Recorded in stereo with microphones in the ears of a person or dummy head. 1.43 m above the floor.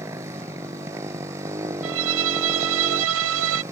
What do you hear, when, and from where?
0.0 s a motorcycle: 20° right (ahead or behind)
1.8 s a violin: 65° right (ahead or behind)